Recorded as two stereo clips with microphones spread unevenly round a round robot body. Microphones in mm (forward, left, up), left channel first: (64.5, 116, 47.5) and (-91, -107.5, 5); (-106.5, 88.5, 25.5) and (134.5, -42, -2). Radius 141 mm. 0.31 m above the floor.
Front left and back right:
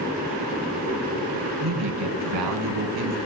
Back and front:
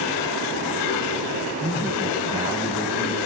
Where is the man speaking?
105° right, 3.5 m.